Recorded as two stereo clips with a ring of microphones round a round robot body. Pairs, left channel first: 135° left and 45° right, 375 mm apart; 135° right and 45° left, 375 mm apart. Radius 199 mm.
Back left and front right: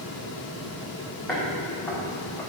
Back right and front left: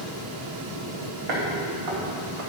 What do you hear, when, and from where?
1.3 s footsteps: 50° left, 3 m